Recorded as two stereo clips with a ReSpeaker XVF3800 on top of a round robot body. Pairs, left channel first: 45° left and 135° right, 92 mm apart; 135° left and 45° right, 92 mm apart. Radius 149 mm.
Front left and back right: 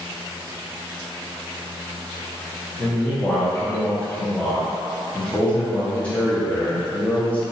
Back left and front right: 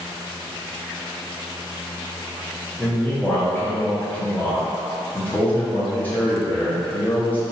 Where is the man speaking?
95° left, 1.2 m.